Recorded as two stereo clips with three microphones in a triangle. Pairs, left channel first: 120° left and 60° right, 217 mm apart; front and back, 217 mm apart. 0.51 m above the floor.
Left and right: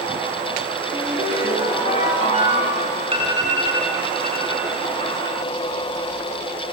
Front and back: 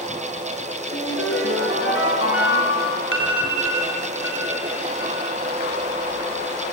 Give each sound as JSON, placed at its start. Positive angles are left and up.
{"t": 0.9, "sound": "a ringtone", "azimuth_deg": 0, "distance_m": 5.0}
{"t": 3.1, "sound": "an alarm", "azimuth_deg": 5, "distance_m": 3.0}